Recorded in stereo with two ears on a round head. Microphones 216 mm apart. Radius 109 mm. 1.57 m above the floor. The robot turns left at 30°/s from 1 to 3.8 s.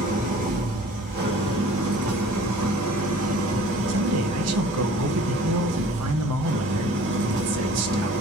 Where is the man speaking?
70° right (ahead or behind), 1.2 m.